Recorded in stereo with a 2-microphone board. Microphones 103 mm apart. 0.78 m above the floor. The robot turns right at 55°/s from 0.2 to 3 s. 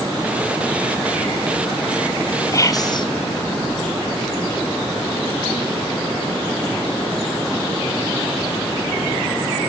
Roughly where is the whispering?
Left.